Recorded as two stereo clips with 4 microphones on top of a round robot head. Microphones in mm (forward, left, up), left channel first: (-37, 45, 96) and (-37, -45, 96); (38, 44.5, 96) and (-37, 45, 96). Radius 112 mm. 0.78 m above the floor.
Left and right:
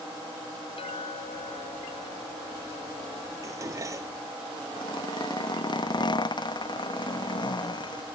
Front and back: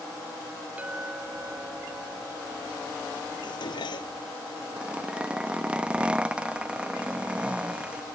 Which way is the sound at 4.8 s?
105° left.